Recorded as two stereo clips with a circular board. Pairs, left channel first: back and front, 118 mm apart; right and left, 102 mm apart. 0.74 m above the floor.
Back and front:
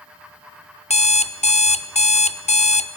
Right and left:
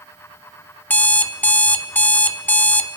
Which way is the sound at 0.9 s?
160° right.